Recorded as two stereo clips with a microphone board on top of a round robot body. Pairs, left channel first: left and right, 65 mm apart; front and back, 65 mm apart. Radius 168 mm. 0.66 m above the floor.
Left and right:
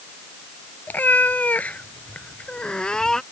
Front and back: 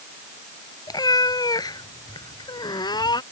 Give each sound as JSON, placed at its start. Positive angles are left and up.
{"t": 0.9, "sound": "a cat meowing", "azimuth_deg": 25}